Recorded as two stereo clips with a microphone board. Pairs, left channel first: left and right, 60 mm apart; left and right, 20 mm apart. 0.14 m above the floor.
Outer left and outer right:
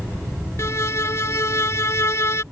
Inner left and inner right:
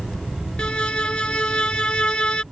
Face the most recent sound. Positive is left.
turn(degrees=50)  # may be behind; listen again after turning